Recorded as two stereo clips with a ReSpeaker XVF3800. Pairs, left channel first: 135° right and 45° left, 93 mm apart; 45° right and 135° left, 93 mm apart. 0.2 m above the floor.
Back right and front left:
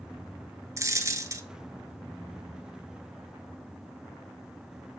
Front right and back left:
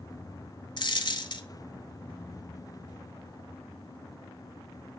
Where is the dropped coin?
10° right, 0.7 m.